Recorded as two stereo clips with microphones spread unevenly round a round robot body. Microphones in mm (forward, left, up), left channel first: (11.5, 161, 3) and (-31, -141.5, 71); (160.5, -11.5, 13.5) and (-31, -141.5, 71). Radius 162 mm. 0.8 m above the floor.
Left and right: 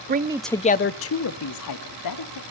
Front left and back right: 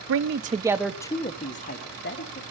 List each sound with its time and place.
0.1 s a man speaking: 160° right, 0.6 m; by 2.4 s 80° left, 1.8 m